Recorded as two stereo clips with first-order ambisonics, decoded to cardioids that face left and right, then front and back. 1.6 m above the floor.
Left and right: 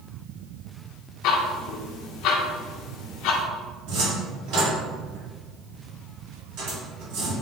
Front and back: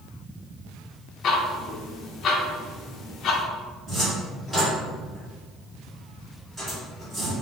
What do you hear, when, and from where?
1.2 s ticking: 55° left, 0.5 m
3.9 s a cupboard door: 105° right, 1.9 m